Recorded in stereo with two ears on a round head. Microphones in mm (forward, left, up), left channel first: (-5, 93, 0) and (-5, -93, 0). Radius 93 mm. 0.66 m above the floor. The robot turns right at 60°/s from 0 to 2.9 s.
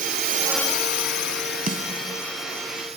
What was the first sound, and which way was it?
A drone, 45° right (ahead or behind).